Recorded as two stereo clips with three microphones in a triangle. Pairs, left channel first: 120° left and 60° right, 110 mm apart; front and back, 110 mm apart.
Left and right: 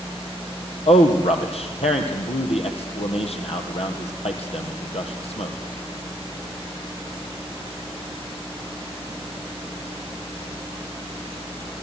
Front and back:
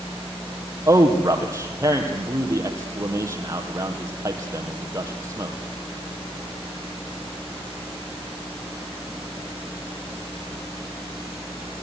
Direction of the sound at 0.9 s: 120° left.